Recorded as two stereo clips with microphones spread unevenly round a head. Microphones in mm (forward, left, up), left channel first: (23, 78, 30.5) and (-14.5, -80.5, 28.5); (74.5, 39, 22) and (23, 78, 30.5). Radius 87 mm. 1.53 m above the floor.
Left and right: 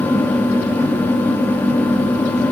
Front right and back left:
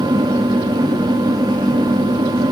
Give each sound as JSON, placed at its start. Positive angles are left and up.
{"t": 0.0, "sound": "a fan", "azimuth_deg": 155, "distance_m": 2.0}